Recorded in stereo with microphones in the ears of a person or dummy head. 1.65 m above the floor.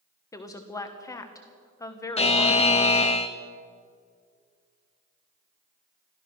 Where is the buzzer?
35° left (ahead or behind), 0.7 m.